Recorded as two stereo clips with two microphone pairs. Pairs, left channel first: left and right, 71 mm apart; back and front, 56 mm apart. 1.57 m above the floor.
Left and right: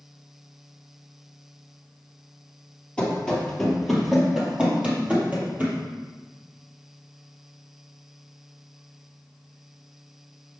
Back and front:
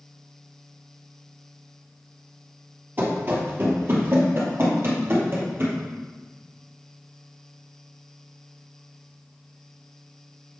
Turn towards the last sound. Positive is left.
turn(degrees=-35)